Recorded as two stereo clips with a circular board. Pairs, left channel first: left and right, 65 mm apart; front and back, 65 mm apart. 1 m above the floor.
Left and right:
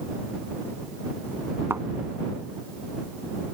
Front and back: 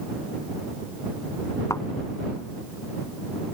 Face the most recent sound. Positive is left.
turn(degrees=-35)